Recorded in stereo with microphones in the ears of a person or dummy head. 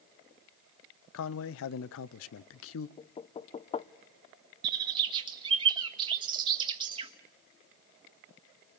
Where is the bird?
25° right (ahead or behind), 1.5 m.